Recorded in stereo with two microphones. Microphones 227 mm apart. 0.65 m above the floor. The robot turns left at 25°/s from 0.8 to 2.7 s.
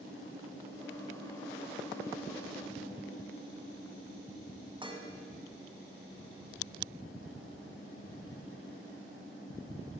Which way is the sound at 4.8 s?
20° right (ahead or behind).